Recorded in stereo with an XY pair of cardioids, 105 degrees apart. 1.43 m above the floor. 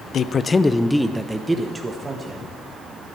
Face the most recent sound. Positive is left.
turn(degrees=-30)